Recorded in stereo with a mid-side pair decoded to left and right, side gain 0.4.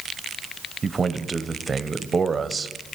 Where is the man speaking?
35° right, 1.1 m.